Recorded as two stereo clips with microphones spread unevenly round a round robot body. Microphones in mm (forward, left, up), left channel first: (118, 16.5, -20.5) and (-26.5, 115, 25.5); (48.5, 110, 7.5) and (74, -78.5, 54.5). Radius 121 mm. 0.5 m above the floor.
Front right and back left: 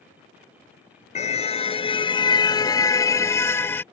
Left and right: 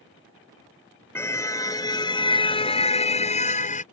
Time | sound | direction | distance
1.1 | a car horn | 20° left | ?